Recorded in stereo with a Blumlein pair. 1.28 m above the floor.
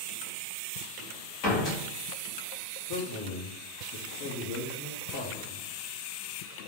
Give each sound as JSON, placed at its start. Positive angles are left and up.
{"t": 1.4, "sound": "a door slam", "azimuth_deg": 40, "distance_m": 1.9}
{"t": 2.9, "sound": "a man speaking", "azimuth_deg": 45, "distance_m": 1.3}